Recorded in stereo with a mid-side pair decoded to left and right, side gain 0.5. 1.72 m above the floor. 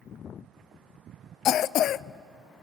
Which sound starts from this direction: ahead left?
A cough, at 1.4 s.